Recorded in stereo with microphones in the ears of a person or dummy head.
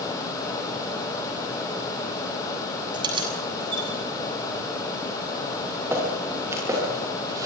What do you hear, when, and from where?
2.9 s keys jangling: 25° right (ahead or behind), 7.5 m
5.5 s footsteps: 15° right (ahead or behind), 9.5 m; by 7.5 s 20° right (ahead or behind), 9 m